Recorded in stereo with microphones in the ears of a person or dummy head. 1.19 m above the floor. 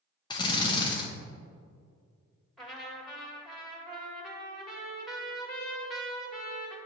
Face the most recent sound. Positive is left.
turn(degrees=5)  # may be behind; listen again after turning